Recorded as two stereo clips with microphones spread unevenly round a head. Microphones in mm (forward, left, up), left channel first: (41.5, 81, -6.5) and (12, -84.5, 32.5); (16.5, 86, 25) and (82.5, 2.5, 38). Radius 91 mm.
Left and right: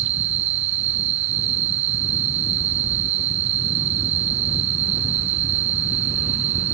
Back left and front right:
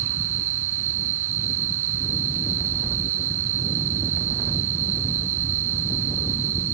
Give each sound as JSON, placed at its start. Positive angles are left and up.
{"t": 0.0, "sound": "an insect", "azimuth_deg": -90}